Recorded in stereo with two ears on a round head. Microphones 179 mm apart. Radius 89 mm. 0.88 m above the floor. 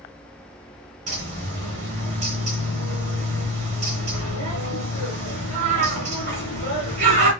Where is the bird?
40° right (ahead or behind), 3 m.